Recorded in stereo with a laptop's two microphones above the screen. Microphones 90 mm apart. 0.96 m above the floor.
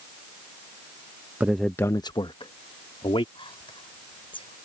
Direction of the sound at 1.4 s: 20° right (ahead or behind).